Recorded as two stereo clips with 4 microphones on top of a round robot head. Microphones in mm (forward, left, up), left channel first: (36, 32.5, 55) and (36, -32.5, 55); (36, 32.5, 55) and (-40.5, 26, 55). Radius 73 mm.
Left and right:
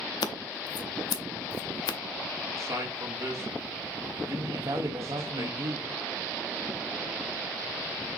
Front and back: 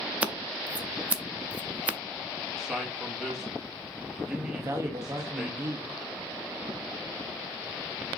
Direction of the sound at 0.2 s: 110° left.